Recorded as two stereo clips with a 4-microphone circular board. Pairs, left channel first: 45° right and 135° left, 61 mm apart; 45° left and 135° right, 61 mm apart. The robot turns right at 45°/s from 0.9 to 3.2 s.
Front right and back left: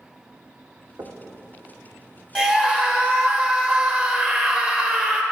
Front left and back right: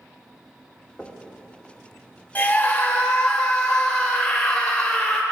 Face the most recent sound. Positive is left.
turn(degrees=100)